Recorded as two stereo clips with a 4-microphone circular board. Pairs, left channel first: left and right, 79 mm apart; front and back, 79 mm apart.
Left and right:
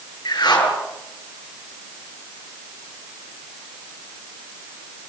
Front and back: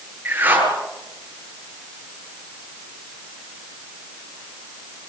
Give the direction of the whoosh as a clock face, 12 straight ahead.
8 o'clock.